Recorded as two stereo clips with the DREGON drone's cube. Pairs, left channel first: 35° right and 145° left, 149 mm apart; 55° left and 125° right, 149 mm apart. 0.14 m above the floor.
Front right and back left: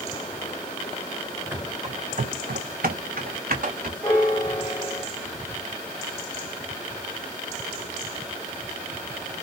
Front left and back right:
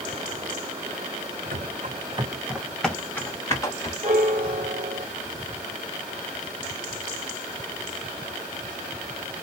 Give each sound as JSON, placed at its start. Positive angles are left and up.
{"t": 1.5, "sound": "running footsteps", "azimuth_deg": -140, "distance_m": 0.6}
{"t": 4.0, "sound": "a piano", "azimuth_deg": -100, "distance_m": 0.7}